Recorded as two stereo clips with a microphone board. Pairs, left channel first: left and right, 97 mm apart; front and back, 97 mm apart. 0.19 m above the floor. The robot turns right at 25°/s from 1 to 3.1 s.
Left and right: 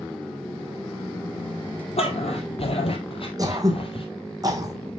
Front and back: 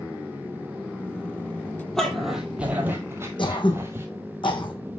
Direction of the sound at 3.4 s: 35° right.